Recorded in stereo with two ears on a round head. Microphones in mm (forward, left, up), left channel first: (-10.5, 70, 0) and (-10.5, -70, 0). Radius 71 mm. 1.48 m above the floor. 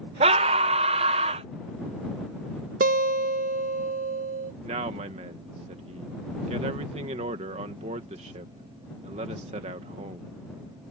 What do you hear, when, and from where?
0.2 s a scream: 35° right (ahead or behind)
2.8 s a guitar: 55° right (ahead or behind)
4.6 s a man speaking: 45° right (ahead or behind)